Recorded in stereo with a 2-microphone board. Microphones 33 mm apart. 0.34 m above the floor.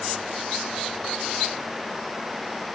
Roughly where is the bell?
I don't hear a bell.